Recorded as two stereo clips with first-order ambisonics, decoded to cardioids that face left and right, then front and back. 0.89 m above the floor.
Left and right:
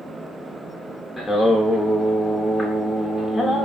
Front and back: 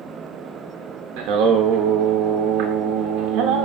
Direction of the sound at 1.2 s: 170° left.